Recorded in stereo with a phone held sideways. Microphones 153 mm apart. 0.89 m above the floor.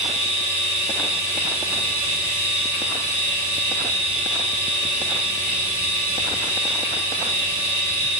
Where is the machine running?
45° left (ahead or behind), 1.7 m.